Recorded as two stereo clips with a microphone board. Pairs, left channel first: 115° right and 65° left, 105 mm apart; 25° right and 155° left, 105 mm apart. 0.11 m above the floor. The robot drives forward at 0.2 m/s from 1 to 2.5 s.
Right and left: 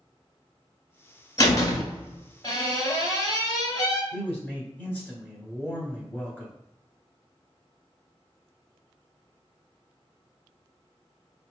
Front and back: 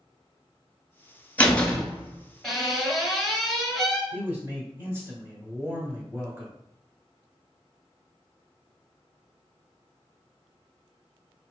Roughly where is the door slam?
Right.